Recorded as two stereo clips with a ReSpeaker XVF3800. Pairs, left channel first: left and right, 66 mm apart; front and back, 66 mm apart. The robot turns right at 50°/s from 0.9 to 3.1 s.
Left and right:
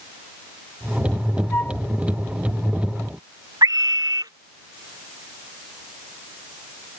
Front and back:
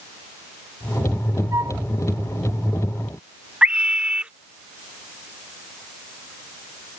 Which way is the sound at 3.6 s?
105° right.